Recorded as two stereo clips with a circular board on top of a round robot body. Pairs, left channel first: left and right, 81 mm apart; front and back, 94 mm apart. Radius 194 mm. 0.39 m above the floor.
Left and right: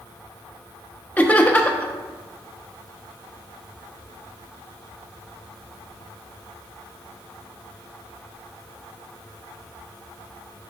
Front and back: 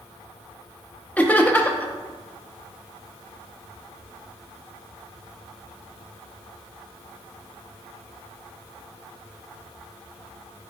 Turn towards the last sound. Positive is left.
turn(degrees=45)